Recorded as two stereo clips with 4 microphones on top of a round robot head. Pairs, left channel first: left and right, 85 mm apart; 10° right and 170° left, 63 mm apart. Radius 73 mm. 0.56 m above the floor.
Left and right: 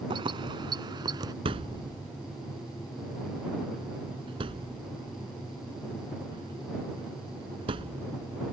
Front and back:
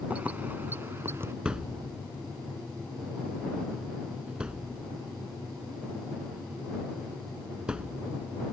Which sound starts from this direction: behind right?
Keys jangling, at 0.1 s.